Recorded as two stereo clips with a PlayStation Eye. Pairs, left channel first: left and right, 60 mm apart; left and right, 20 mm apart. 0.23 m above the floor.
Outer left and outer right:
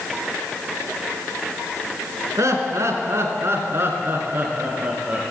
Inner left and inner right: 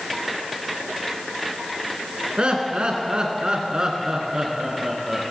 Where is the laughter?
55° right (ahead or behind), 3 m; by 5.2 s 25° right (ahead or behind), 4 m.